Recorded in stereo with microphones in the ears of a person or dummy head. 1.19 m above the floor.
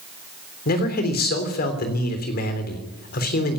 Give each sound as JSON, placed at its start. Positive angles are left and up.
{"t": 0.7, "sound": "a man speaking", "side_deg": 50, "distance_m": 3.5}